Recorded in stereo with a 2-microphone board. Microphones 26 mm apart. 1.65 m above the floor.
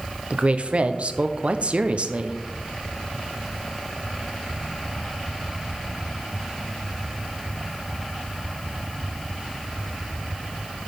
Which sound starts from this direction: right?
A woman speaking, at 0.3 s.